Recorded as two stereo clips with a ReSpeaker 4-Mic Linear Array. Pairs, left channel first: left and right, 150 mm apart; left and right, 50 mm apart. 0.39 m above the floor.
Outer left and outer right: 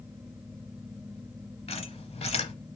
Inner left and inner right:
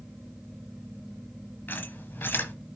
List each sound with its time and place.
1.7 s a squeak: 45° left (ahead or behind), 0.9 m